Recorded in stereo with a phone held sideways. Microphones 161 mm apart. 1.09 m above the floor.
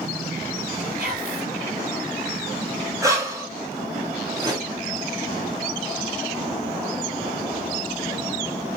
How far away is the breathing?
About 1.5 m.